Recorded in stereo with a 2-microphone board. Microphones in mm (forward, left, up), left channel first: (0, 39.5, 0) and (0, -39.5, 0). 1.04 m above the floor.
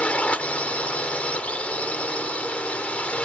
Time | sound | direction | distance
0.0 | a drone | 15° left (ahead or behind) | ?